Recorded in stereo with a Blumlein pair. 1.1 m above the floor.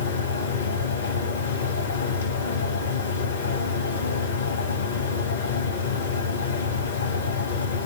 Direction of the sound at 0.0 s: 65° left.